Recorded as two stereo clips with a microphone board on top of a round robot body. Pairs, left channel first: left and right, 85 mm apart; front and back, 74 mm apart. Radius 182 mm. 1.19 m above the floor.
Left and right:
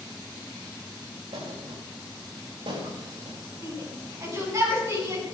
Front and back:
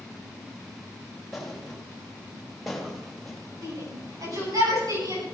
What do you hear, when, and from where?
1.3 s a thud: 90° right, 4 m
3.6 s a shout: 145° right, 9.5 m